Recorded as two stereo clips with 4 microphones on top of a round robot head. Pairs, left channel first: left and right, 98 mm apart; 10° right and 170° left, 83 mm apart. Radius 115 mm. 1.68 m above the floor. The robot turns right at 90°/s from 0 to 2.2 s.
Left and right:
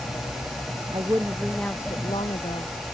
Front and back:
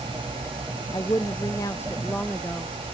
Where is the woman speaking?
50° right; by 2.7 s 65° left.